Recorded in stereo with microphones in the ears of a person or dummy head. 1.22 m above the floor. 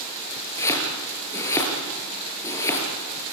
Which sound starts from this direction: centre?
Chopping, at 0.6 s.